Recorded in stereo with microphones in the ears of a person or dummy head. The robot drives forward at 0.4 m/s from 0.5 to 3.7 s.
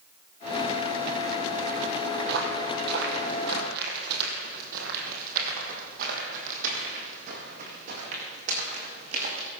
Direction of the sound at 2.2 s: 60° right (ahead or behind).